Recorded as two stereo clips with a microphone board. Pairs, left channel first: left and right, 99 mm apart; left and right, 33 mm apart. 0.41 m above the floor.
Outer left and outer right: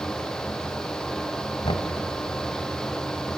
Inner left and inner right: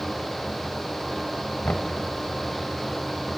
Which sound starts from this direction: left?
Knocking, at 1.6 s.